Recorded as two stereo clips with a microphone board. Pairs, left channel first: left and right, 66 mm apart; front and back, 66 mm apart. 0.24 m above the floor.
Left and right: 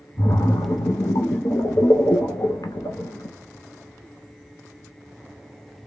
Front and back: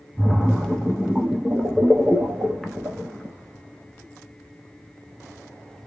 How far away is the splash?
About 0.7 m.